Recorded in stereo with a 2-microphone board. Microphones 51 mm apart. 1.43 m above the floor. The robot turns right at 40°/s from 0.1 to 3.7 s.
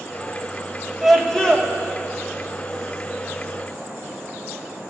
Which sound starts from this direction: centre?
A scream, at 1.0 s.